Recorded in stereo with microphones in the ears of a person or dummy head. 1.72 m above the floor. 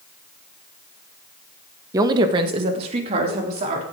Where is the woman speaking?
20° right (ahead or behind), 1.0 m; by 3.8 s 35° right (ahead or behind), 3.5 m.